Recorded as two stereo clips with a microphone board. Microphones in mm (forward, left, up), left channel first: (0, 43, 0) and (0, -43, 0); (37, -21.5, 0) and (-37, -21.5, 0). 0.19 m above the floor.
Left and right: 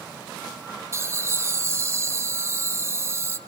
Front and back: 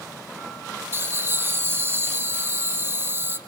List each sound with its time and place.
0.9 s laughter: 135° right, 1.6 m